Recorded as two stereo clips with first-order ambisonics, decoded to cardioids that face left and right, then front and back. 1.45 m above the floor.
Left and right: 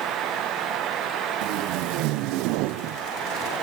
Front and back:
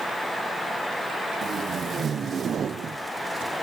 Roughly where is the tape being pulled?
Behind right.